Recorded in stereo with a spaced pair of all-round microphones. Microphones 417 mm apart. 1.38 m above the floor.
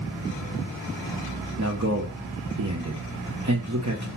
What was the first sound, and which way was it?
A man speaking, 40° right (ahead or behind).